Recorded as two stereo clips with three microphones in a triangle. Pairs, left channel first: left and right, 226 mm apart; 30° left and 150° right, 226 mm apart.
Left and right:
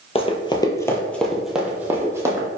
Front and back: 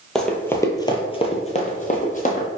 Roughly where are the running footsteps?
Behind left.